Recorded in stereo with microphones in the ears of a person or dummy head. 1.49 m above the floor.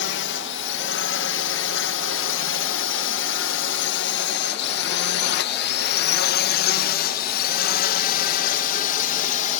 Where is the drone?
55° left (ahead or behind); by 9.6 s 45° left (ahead or behind).